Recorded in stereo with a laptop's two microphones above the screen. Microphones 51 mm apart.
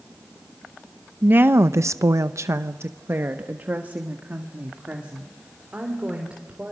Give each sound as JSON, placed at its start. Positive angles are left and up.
{"t": 1.2, "sound": "a woman speaking", "side_deg": -35, "distance_m": 0.8}